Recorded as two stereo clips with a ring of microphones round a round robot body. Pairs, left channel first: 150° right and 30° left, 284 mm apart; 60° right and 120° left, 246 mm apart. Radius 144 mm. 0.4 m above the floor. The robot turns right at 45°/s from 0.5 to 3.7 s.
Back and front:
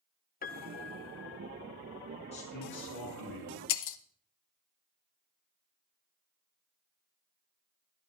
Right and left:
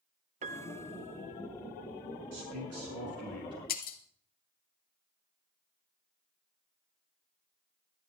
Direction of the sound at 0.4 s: 170° left.